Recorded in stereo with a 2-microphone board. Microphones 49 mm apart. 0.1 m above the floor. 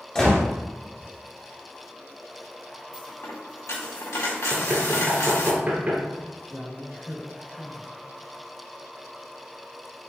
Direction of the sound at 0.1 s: 10° left (ahead or behind).